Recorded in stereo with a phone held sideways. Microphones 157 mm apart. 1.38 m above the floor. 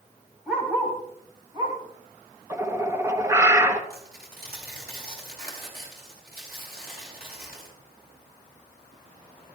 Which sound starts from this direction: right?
Tearing paper, at 3.9 s.